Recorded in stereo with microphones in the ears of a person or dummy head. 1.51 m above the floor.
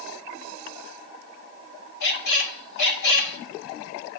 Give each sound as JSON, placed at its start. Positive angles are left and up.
{"t": 2.0, "sound": "a squeak", "side_deg": 60, "distance_m": 1.9}